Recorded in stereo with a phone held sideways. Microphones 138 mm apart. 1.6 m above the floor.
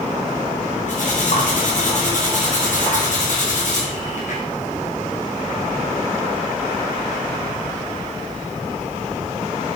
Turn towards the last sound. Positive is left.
turn(degrees=65)  # may be behind; listen again after turning